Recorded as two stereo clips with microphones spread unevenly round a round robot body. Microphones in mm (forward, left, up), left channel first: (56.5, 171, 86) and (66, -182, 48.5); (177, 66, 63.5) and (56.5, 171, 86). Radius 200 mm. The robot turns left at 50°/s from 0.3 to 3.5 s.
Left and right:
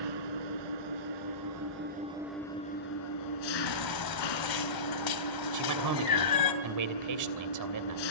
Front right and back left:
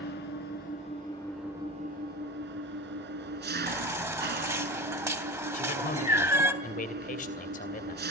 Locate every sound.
0.0 s an engine running: 75° right, 2.5 m; by 8.1 s 125° left, 2.5 m
3.7 s a baby crying: 65° left, 3 m
5.5 s a man speaking: 65° right, 2.5 m